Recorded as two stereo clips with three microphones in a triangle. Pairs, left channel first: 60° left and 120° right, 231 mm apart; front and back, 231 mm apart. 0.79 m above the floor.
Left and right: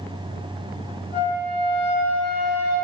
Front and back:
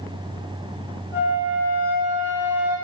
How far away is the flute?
About 1.6 m.